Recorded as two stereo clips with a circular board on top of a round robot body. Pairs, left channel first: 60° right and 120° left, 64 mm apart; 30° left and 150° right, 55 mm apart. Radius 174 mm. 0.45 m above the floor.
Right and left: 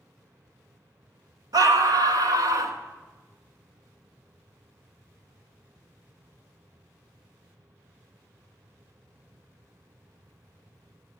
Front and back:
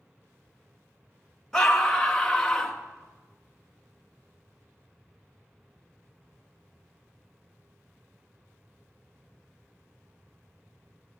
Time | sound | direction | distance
1.5 | a scream | 115° left | 3 m